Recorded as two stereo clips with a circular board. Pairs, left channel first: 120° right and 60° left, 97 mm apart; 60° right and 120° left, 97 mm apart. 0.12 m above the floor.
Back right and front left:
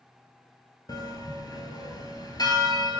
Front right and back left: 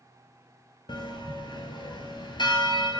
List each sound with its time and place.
0.9 s a bell: 80° right, 0.9 m